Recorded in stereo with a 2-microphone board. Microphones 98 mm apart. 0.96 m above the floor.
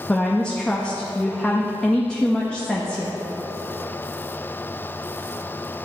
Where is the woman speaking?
10° left (ahead or behind), 0.8 m.